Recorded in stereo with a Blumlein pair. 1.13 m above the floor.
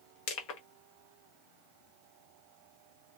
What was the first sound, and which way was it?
Crushing, 40° left.